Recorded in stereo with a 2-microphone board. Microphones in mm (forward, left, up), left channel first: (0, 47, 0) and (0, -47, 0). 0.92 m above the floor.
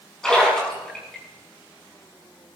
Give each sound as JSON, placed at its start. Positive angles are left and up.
{"t": 0.2, "sound": "a splash", "side_deg": 10, "distance_m": 7.0}